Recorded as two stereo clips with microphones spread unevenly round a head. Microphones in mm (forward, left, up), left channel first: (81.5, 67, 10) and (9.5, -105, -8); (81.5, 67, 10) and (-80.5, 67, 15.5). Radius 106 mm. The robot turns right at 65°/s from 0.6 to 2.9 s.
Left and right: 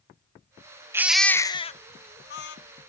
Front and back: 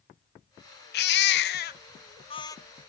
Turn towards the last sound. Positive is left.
turn(degrees=95)